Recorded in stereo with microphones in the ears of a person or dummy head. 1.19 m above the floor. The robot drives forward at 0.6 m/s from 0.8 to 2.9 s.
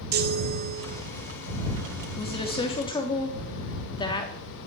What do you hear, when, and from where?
0.1 s a chime: 50° right (ahead or behind), 1.2 m; by 1.0 s 45° right (ahead or behind), 1.2 m
2.2 s a woman speaking: 25° left (ahead or behind), 2 m; by 4.3 s 20° left (ahead or behind), 2.5 m